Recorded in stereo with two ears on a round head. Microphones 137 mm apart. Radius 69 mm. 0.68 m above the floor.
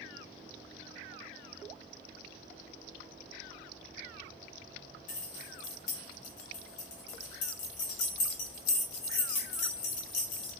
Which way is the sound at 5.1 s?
50° left (ahead or behind).